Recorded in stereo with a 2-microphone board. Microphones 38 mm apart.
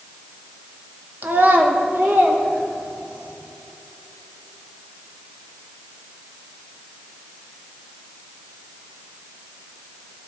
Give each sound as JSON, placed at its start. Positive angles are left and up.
{"t": 1.2, "sound": "a child speaking", "side_deg": -50, "distance_m": 1.3}